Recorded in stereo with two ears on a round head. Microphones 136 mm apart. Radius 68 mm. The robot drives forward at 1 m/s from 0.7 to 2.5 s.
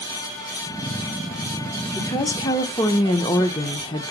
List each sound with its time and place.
1.9 s a woman speaking: 20° left (ahead or behind), 0.9 m; by 4.1 s 30° left (ahead or behind), 0.7 m